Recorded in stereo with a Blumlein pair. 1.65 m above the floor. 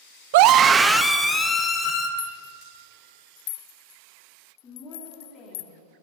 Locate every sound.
0.3 s a scream: 55° right, 0.6 m; by 2.1 s 20° left, 2.5 m
2.2 s a rattle: 45° left, 0.7 m
4.6 s a woman speaking: 20° left, 4.5 m